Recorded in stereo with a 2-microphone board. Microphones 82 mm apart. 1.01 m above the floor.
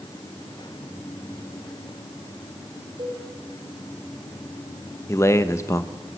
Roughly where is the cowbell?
Right.